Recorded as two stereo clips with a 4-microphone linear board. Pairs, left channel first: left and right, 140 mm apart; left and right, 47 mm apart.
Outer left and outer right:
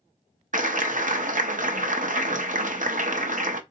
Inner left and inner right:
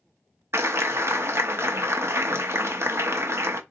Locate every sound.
0.5 s a clap: 70° right (ahead or behind), 0.7 m